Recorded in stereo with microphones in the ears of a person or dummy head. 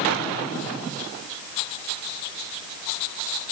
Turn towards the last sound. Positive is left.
No sound to turn to.